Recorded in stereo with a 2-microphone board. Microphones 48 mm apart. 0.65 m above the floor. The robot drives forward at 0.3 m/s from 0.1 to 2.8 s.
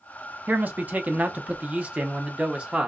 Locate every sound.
0.5 s a man speaking: 35° right (ahead or behind), 0.6 m; by 2.9 s 20° right (ahead or behind), 1.0 m